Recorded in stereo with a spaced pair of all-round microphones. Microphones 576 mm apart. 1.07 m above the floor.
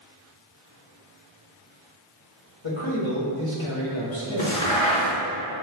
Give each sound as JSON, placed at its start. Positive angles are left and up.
{"t": 2.6, "sound": "a man speaking", "side_deg": 55, "distance_m": 1.3}
{"t": 4.4, "sound": "a crack", "side_deg": 60, "distance_m": 1.7}